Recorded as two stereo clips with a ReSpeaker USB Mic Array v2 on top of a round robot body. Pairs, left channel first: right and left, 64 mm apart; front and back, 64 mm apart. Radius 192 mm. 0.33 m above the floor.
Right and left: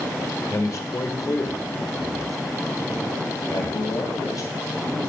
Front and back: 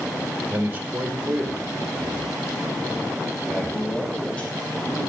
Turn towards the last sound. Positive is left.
turn(degrees=-65)